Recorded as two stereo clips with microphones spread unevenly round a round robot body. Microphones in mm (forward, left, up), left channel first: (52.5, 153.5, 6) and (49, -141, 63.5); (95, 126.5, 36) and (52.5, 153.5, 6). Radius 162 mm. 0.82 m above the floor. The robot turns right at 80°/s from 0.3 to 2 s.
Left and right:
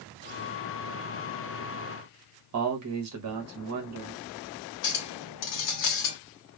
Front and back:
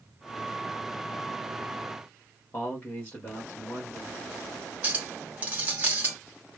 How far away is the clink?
About 1.0 m.